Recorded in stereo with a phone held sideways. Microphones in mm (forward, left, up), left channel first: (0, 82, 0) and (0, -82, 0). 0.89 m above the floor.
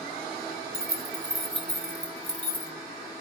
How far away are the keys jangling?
About 0.7 m.